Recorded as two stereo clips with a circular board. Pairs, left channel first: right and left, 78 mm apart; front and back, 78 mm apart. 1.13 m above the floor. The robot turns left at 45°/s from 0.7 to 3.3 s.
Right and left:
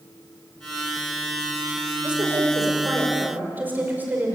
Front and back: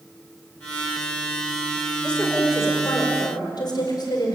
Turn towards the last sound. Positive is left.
turn(degrees=25)